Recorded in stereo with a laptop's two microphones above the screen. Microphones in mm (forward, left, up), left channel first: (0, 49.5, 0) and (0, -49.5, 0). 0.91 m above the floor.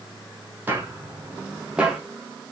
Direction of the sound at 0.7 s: 20° right (ahead or behind).